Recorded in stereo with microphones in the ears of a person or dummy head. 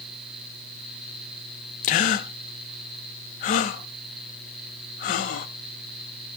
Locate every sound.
1.8 s a gasp: 40° left (ahead or behind), 0.9 m